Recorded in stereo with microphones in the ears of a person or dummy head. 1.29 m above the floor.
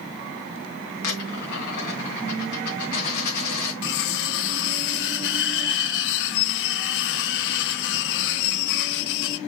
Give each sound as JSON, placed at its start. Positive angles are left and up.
{"t": 1.0, "sound": "a dropped coin", "side_deg": 60, "distance_m": 3.0}
{"t": 3.8, "sound": "cutlery clinking", "side_deg": 65, "distance_m": 0.8}